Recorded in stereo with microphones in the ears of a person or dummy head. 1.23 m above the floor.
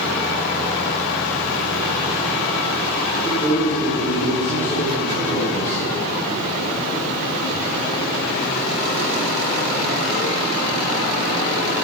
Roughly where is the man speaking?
Left.